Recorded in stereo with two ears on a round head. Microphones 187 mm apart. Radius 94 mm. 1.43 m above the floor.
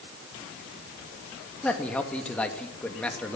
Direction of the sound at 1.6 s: 5° left (ahead or behind).